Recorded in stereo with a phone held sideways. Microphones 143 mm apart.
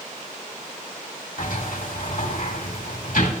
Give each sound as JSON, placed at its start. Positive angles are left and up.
{"t": 1.4, "sound": "a sliding door", "side_deg": 80, "distance_m": 2.0}